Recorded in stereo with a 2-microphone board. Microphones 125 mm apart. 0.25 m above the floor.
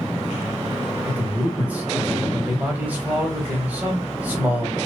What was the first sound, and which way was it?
A man speaking, 10° right (ahead or behind).